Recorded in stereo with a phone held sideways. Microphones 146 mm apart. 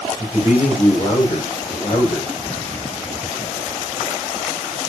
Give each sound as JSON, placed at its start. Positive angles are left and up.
{"t": 0.2, "sound": "a man speaking", "side_deg": 50, "distance_m": 7.0}